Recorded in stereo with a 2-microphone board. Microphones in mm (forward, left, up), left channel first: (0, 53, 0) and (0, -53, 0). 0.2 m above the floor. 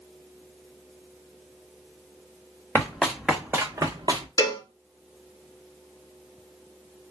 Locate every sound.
2.8 s running footsteps: 20° left (ahead or behind), 1.0 m; by 4.3 s 50° right (ahead or behind), 1.0 m
4.4 s a cowbell: 35° left (ahead or behind), 0.7 m